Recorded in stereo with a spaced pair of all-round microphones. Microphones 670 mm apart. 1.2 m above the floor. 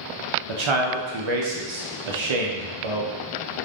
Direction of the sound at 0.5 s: 50° right (ahead or behind).